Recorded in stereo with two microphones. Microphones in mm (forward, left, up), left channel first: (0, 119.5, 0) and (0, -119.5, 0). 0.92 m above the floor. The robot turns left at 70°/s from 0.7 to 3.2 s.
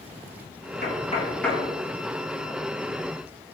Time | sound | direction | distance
0.8 | knocking | 45° left (ahead or behind) | 0.9 m